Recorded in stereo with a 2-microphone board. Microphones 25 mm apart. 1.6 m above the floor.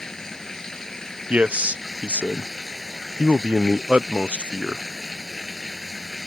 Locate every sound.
0.0 s running water: 25° left (ahead or behind)
1.3 s a man speaking: 90° right